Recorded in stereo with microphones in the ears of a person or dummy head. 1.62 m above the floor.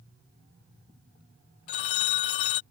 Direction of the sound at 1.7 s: 35° left (ahead or behind).